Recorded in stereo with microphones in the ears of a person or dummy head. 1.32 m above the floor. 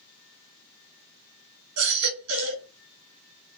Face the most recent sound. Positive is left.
turn(degrees=-80)